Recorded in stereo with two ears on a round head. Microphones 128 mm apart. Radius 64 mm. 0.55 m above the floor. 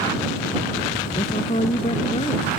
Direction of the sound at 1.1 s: 40° left (ahead or behind).